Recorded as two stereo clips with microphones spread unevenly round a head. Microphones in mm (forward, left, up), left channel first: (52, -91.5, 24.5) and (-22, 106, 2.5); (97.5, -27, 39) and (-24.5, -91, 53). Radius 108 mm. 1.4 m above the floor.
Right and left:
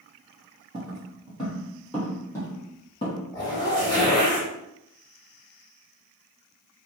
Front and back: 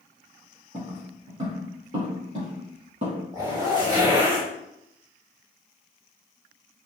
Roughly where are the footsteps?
Behind.